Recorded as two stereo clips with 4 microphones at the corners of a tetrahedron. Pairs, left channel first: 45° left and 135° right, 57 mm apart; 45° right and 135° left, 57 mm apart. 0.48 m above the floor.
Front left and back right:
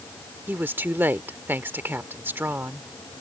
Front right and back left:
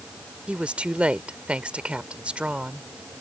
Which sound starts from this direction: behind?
A woman speaking, at 0.5 s.